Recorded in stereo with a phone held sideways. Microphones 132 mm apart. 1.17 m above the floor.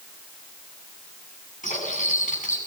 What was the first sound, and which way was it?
Cutlery clinking, 80° left.